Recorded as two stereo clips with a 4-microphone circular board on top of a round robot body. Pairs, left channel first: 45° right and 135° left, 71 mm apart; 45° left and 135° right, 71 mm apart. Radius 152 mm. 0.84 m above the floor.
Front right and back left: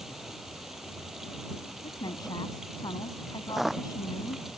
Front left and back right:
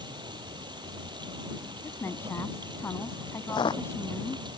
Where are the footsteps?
50° left.